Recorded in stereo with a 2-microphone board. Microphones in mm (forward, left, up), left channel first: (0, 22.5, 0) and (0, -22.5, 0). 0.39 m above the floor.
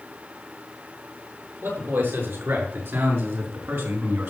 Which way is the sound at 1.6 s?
65° right (ahead or behind).